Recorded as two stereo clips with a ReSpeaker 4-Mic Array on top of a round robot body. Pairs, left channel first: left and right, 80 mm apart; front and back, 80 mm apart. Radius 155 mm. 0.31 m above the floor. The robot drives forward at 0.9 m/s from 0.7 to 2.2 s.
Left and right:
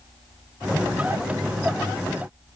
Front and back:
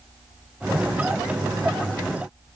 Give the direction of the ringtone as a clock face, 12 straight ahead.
No ringtone in this recording.